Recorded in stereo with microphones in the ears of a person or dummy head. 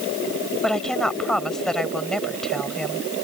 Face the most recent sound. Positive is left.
turn(degrees=0)  # may be behind; listen again after turning